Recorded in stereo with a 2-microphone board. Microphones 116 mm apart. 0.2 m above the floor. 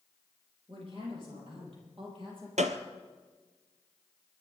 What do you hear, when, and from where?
0.7 s a woman speaking: 50° right (ahead or behind), 8 m
2.6 s a gunshot: 80° right, 1.1 m